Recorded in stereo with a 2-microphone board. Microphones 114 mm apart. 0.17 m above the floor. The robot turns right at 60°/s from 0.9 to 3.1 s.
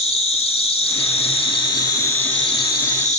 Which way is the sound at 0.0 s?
75° left.